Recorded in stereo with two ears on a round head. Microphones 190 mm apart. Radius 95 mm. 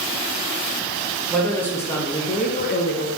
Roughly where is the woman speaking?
Centre.